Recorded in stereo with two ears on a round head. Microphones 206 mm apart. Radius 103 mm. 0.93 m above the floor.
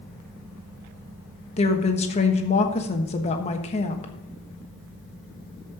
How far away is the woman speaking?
About 1.2 m.